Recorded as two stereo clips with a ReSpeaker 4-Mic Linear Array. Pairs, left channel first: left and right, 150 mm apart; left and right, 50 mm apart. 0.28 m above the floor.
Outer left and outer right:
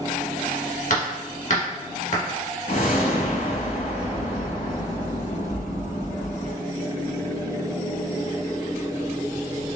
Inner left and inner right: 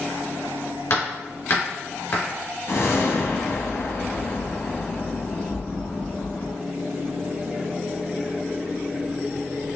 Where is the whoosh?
65° left (ahead or behind), 0.9 m.